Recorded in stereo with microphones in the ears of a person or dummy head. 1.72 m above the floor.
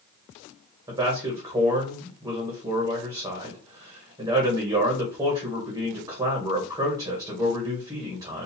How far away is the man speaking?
About 0.7 m.